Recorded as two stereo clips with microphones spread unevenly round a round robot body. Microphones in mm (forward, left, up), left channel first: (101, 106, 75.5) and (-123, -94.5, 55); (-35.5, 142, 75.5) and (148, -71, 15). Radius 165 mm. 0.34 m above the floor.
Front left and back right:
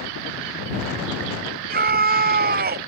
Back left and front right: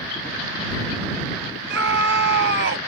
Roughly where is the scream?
Right.